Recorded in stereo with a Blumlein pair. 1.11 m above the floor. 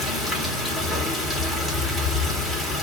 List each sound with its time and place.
0.0 s running water: 10° left, 1.0 m